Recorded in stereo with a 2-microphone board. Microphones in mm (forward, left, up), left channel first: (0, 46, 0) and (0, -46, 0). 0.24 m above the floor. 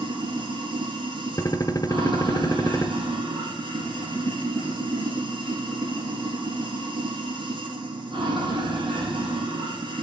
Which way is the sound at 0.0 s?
60° right (ahead or behind).